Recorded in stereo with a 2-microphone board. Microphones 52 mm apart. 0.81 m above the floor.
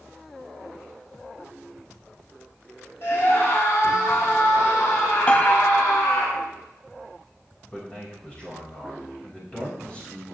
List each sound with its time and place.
3.0 s a scream: 50° left (ahead or behind), 4.5 m; by 6.3 s 75° left (ahead or behind), 6 m
5.3 s a piano: 20° left (ahead or behind), 0.6 m
7.7 s a man speaking: 20° left (ahead or behind), 5 m